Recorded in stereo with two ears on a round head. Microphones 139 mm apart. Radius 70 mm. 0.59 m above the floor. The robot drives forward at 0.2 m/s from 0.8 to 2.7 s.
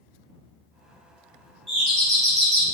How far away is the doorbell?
About 1.4 m.